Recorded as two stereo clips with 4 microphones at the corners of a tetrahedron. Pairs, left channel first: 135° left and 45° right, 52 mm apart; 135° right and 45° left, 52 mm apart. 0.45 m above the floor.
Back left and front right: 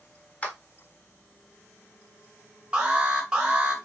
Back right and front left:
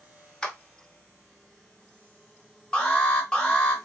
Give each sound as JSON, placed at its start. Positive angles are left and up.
{"t": 0.4, "sound": "a clap", "azimuth_deg": 160, "distance_m": 0.7}
{"t": 2.7, "sound": "an alarm", "azimuth_deg": -95, "distance_m": 0.9}